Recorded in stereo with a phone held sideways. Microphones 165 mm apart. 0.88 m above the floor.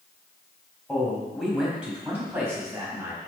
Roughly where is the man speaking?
Centre.